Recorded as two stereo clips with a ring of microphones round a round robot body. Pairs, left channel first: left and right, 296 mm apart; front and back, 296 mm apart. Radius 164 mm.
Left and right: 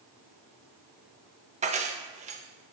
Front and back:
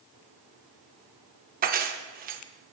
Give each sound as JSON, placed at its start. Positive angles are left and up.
{"t": 1.6, "sound": "keys jangling", "azimuth_deg": -140, "distance_m": 0.5}